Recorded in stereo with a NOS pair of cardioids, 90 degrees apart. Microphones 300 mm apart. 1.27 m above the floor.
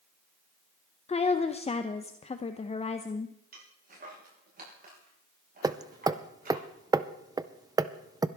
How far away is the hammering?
About 0.5 m.